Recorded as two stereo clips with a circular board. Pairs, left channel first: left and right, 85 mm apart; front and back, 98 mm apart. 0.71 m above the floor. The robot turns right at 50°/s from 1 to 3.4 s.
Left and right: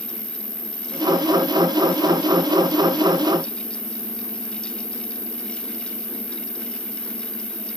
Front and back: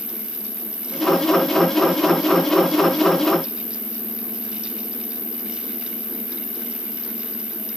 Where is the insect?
45° right, 2.5 m; by 7.8 s 75° left, 2.5 m.